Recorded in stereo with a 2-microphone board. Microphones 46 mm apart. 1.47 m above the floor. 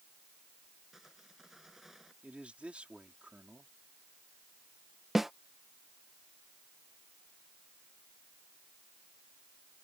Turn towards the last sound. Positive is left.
turn(degrees=-5)  # may be behind; listen again after turning